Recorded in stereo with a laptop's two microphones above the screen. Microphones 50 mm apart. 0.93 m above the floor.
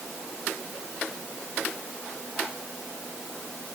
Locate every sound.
Only background noise.